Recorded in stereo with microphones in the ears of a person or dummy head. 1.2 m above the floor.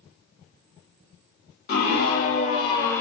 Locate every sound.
1.7 s a scream: 60° left (ahead or behind), 1.7 m; by 3.0 s 15° left (ahead or behind), 0.8 m